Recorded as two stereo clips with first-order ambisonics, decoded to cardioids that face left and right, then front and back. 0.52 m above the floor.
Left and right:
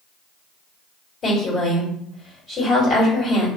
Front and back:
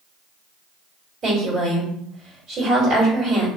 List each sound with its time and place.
1.2 s a woman speaking: 135° left, 1.7 m